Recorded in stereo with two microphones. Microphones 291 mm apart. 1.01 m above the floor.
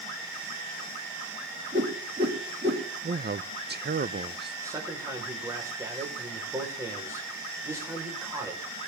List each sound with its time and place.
1.7 s a whoosh: 35° right (ahead or behind), 2.5 m
3.0 s a man speaking: 35° right (ahead or behind), 0.6 m
4.6 s a man speaking: 10° right (ahead or behind), 4.5 m